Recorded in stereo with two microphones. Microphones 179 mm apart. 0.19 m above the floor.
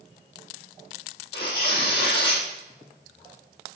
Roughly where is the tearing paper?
Left.